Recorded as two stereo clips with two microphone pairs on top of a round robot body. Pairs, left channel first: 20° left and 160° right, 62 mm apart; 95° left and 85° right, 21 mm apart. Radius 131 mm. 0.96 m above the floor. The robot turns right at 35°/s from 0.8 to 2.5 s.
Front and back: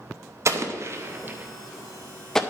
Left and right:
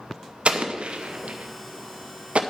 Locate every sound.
0.5 s an explosion: 115° right, 0.8 m; by 2.4 s 60° right, 0.8 m